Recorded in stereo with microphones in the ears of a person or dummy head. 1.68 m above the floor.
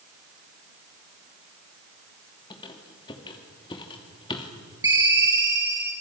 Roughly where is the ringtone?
Centre.